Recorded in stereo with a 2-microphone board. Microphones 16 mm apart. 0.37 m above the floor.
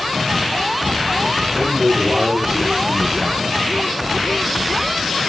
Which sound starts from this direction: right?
A man speaking, at 1.5 s.